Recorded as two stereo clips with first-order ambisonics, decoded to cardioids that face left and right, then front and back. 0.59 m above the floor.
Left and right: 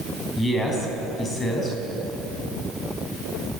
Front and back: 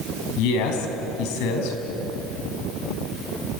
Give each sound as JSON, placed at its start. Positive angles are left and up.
{"t": 0.4, "sound": "a man speaking", "azimuth_deg": 10, "distance_m": 4.5}